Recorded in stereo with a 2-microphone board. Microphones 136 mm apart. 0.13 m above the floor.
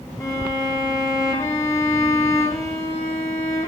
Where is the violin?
25° left (ahead or behind), 1.7 m.